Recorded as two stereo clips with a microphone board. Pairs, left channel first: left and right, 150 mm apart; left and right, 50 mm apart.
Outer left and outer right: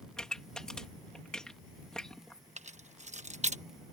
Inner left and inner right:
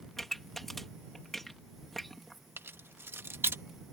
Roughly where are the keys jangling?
Right.